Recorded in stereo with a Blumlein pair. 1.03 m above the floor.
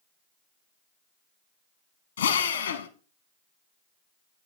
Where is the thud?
I don't hear a thud.